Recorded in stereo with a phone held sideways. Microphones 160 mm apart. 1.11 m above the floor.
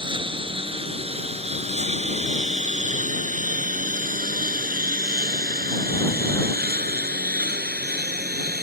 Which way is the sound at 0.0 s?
30° right (ahead or behind).